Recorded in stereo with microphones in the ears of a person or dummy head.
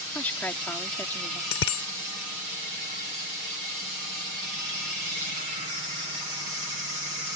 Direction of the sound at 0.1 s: 10° left (ahead or behind).